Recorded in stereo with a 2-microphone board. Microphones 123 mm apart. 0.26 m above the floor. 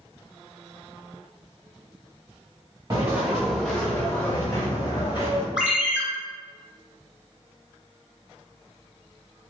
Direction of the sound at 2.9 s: 25° right (ahead or behind).